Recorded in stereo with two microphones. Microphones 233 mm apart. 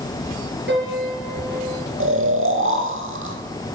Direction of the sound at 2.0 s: 60° right (ahead or behind).